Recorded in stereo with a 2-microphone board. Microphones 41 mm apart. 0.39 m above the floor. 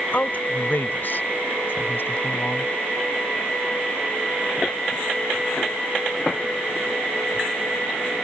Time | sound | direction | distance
0.1 | a woman speaking | 45° left (ahead or behind) | ?